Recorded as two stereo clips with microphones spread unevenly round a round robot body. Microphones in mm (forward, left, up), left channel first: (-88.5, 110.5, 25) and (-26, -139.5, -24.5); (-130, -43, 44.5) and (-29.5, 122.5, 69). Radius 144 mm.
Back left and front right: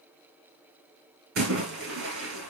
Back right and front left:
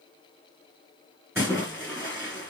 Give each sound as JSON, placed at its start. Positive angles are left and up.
{"t": 1.4, "sound": "a splash", "azimuth_deg": -20, "distance_m": 5.5}